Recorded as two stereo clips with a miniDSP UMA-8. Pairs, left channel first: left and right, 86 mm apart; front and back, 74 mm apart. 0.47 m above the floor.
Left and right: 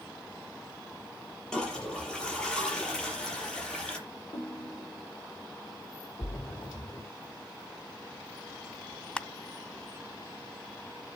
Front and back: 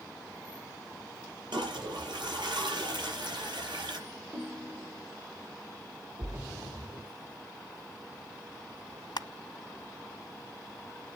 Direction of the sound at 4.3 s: 120° left.